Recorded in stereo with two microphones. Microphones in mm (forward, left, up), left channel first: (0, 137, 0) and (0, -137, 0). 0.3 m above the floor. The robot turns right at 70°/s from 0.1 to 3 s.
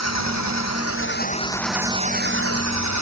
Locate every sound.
0.0 s an engine running: 70° left; by 3.0 s 90° right